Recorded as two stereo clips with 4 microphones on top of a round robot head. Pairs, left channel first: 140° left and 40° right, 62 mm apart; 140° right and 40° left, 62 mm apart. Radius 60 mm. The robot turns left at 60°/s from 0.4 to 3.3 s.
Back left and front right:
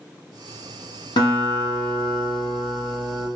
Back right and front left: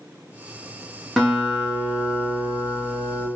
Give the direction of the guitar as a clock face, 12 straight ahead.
8 o'clock.